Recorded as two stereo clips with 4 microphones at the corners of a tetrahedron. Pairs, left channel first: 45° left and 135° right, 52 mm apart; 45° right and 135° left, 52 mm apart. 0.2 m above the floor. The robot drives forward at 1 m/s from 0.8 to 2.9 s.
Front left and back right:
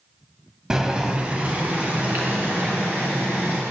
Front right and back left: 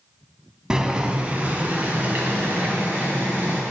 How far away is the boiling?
About 1.0 m.